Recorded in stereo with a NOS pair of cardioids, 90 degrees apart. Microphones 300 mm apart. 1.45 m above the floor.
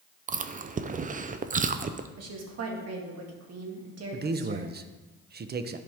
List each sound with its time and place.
0.3 s chewing: 25° right, 0.6 m
2.2 s a woman speaking: 55° right, 2 m
4.1 s a man speaking: 30° right, 0.7 m